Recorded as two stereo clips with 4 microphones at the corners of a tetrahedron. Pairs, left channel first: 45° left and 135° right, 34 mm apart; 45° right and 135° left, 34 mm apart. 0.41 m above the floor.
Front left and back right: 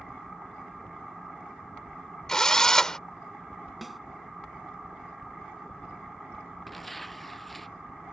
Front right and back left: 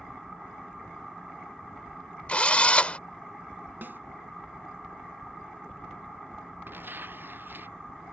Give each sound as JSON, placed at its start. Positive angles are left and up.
{"t": 2.3, "sound": "a drill", "azimuth_deg": -20}
{"t": 3.8, "sound": "a snare drum", "azimuth_deg": 135}
{"t": 6.7, "sound": "tearing paper", "azimuth_deg": 130}